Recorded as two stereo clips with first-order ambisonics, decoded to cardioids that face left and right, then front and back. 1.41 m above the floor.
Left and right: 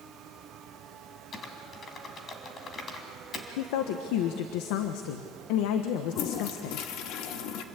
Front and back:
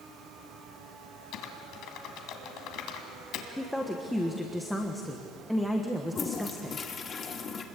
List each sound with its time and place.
1.3 s typing on a keyboard: 30° left, 2.5 m
3.6 s a woman speaking: 85° left, 1.3 m
6.1 s a toilet flushing: 65° left, 1.5 m